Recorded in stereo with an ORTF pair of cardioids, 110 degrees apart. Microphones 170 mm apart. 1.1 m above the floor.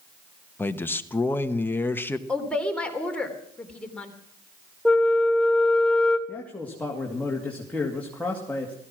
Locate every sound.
0.6 s a man speaking: 15° left, 1.1 m
2.3 s a woman speaking: 5° left, 3 m
4.8 s a flute: 5° left, 2.0 m
6.3 s a man speaking: 10° left, 2.5 m